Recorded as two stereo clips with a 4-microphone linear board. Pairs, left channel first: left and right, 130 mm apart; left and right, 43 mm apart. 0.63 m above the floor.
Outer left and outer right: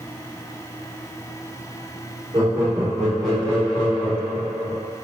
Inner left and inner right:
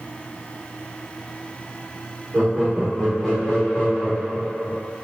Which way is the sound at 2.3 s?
30° right (ahead or behind).